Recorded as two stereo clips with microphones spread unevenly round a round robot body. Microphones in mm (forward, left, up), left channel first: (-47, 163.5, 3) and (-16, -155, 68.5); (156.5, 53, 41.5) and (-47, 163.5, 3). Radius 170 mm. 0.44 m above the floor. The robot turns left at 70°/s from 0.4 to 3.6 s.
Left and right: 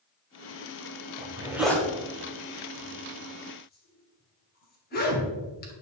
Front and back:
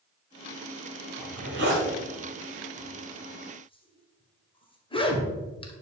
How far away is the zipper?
About 2 m.